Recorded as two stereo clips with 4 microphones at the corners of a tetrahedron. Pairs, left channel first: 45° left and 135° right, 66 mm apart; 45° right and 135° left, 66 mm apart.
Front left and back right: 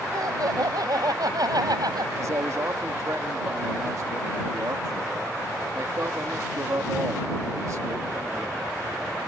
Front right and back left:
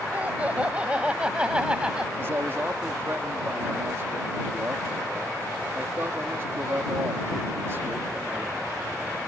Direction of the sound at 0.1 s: 160° right.